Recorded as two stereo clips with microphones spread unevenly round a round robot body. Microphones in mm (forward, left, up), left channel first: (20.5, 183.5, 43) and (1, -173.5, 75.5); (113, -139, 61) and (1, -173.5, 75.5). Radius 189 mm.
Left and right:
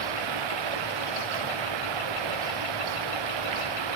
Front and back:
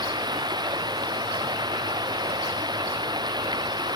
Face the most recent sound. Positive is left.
turn(degrees=-110)